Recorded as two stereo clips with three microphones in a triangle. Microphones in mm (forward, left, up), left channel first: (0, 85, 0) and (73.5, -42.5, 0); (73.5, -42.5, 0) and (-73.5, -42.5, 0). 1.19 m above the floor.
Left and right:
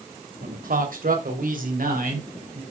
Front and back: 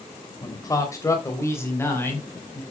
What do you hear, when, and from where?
0.4 s a man speaking: 65° right, 3 m; by 2.6 s 75° right, 5.5 m